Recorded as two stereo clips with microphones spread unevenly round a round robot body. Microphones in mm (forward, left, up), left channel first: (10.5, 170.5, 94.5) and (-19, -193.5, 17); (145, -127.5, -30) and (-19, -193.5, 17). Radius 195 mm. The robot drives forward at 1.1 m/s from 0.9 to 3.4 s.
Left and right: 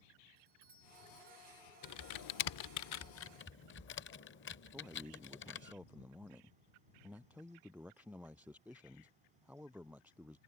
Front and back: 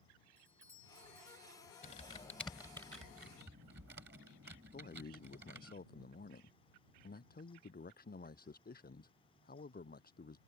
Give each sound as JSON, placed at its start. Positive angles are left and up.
{"t": 0.4, "sound": "a doorbell", "azimuth_deg": -30}
{"t": 1.8, "sound": "typing on a keyboard", "azimuth_deg": 45}
{"t": 4.7, "sound": "a man speaking", "azimuth_deg": -10}